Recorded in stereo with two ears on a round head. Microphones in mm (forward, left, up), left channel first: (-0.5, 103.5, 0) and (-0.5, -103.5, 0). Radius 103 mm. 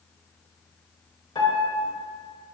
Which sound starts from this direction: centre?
A piano, at 1.4 s.